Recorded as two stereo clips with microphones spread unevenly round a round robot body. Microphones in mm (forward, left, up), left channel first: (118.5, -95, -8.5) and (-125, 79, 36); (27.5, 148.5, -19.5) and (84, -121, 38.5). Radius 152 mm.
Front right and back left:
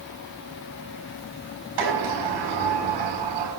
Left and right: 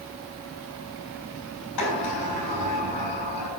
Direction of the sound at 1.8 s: 135° left.